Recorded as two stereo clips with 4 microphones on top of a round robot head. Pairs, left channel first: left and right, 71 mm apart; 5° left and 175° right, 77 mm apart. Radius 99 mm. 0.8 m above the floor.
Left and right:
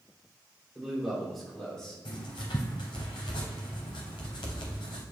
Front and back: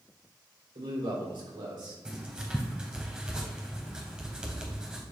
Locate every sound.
0.8 s a man speaking: 175° right, 3 m; by 1.9 s 170° left, 3 m
2.0 s writing: 110° left, 0.8 m